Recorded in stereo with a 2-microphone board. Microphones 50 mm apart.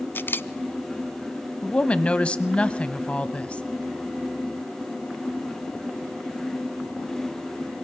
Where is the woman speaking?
25° left (ahead or behind), 1.1 m.